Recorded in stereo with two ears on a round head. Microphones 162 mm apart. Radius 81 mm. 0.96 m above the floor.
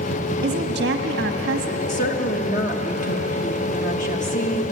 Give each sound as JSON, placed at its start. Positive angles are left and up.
{"t": 0.4, "sound": "a woman speaking", "side_deg": -65, "distance_m": 1.5}
{"t": 1.9, "sound": "a woman speaking", "side_deg": 45, "distance_m": 1.3}